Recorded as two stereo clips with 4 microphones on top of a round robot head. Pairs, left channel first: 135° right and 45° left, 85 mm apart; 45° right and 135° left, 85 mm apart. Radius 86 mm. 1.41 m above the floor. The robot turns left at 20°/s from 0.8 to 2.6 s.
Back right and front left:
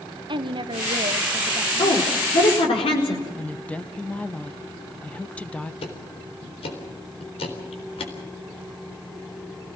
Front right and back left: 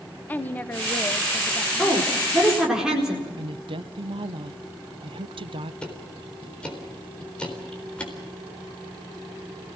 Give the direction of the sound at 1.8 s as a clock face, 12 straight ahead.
4 o'clock.